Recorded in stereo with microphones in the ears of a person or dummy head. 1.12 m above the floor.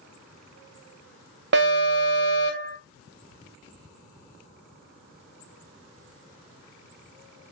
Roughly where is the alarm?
Right.